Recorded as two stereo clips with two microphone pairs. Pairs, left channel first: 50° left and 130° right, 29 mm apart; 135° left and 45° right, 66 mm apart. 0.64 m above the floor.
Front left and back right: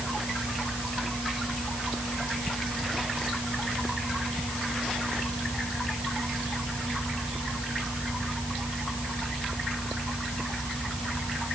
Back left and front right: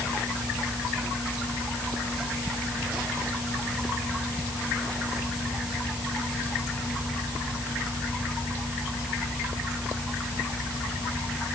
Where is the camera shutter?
No camera shutter in this recording.